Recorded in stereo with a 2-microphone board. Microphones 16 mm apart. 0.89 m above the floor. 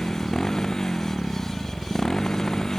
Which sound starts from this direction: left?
A motorcycle, at 0.0 s.